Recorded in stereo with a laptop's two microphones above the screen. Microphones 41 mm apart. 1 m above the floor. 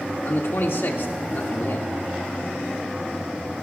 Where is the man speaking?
75° left (ahead or behind), 2 m.